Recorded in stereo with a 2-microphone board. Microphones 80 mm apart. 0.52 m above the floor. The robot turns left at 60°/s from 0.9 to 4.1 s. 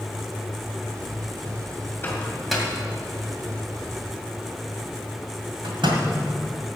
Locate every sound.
2.0 s a microwave: 30° left (ahead or behind), 2 m; by 6.0 s 75° right (ahead or behind), 2 m